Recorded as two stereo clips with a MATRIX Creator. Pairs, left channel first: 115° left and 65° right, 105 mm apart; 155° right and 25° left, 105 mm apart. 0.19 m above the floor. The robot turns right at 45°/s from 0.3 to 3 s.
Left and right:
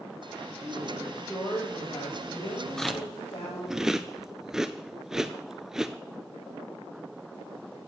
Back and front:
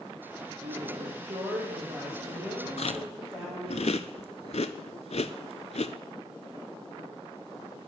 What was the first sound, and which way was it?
A woman speaking, straight ahead.